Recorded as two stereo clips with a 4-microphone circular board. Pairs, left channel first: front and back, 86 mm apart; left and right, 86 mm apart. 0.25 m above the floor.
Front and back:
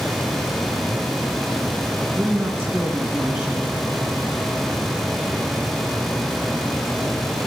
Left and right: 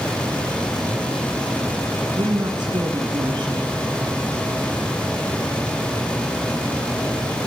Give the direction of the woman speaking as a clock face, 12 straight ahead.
4 o'clock.